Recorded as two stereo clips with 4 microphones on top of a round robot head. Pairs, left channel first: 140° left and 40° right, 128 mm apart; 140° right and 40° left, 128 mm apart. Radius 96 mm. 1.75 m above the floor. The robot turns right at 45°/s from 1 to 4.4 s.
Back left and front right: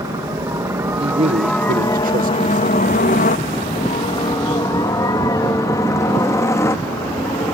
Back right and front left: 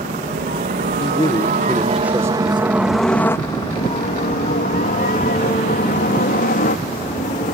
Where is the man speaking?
90° right; by 2.8 s 5° right.